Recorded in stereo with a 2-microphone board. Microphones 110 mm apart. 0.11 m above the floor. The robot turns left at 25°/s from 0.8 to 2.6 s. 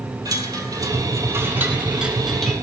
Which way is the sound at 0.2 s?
140° right.